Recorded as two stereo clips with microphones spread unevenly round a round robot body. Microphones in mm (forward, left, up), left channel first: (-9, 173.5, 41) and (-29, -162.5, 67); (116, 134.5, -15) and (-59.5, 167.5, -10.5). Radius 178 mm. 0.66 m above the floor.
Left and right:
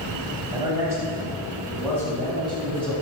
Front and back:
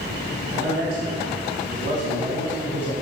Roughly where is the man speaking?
Behind.